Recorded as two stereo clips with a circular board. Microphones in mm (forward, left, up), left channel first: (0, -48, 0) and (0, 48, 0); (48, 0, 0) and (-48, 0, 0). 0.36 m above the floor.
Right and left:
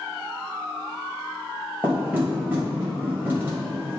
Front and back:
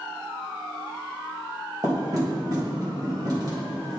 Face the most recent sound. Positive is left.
turn(degrees=155)